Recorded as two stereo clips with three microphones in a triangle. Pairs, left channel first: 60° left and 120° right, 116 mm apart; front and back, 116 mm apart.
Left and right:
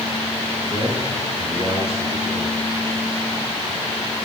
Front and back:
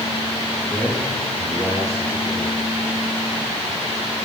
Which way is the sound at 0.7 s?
90° right.